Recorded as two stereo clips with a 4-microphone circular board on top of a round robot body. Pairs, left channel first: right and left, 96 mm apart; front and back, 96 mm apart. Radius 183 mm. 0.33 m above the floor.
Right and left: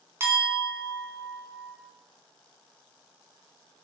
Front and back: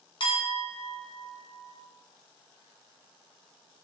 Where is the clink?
30° left, 0.9 m.